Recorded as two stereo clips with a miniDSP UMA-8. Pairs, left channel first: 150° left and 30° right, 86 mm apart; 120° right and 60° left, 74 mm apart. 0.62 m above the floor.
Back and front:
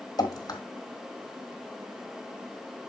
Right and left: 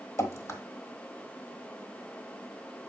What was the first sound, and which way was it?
Dripping, 170° right.